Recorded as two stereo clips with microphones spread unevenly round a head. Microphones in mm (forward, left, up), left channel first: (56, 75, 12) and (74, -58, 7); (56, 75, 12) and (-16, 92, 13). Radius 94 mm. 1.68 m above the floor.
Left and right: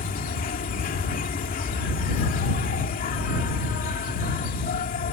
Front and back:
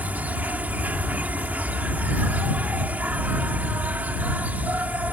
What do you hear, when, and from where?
0.0 s an insect: 100° left